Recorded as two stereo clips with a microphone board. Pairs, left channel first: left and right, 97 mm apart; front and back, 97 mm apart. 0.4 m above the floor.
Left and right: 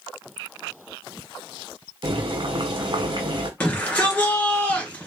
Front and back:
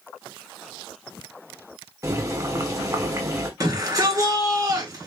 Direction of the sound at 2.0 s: 125° right.